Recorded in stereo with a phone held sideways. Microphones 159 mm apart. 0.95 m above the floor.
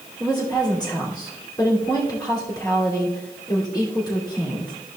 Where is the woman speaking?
25° left (ahead or behind), 2.5 m.